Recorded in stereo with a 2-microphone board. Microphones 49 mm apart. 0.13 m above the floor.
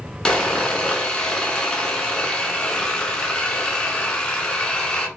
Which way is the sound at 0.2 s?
15° left (ahead or behind).